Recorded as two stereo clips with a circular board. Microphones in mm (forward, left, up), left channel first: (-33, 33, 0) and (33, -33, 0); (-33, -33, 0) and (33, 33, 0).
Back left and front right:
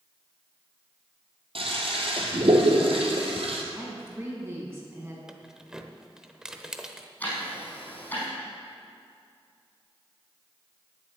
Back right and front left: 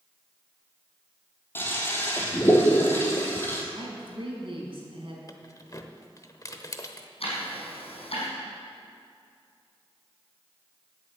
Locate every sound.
1.6 s a toilet flushing: 65° right, 2 m
3.8 s a woman speaking: 15° left, 4 m
5.3 s keys jangling: 125° right, 0.8 m
7.2 s ticking: 155° right, 5 m